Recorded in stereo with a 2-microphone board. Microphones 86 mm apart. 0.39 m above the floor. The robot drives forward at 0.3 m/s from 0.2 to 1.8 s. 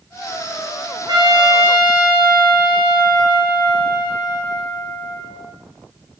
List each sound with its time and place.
1.1 s a trumpet: 60° right (ahead or behind), 0.9 m; by 5.5 s 50° right (ahead or behind), 1.0 m